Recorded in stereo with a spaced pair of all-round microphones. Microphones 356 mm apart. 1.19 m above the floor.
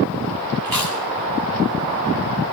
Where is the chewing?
70° right (ahead or behind), 3.5 m.